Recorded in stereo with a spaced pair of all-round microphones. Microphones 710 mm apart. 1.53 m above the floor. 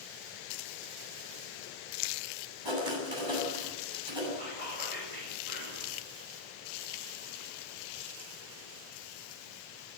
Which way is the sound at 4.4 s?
60° right (ahead or behind).